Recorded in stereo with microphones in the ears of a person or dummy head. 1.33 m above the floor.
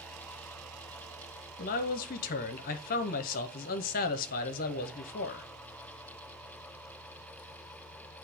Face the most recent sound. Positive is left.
turn(degrees=45)  # may be behind; listen again after turning